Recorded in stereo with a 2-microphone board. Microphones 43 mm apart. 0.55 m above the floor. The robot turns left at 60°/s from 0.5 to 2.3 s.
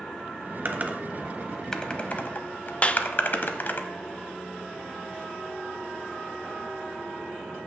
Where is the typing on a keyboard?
50° right (ahead or behind), 0.8 m; by 3.8 s 50° left (ahead or behind), 0.8 m.